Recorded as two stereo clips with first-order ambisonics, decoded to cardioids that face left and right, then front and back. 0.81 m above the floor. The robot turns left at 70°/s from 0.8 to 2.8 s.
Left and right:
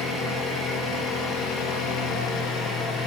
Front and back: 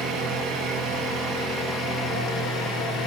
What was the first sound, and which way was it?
An engine running, 175° left.